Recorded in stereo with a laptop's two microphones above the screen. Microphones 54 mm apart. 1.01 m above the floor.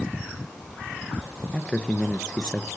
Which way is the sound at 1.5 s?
15° left (ahead or behind).